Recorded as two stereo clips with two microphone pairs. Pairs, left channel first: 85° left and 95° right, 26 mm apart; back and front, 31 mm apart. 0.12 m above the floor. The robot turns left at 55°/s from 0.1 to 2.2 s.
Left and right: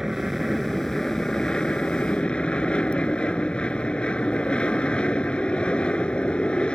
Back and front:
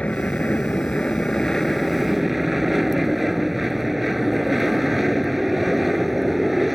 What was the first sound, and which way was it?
An aircraft, 165° right.